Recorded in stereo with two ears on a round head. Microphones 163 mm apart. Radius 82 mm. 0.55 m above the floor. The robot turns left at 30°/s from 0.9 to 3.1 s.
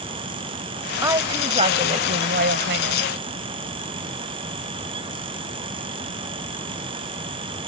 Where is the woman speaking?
15° right; by 3.1 s 80° right.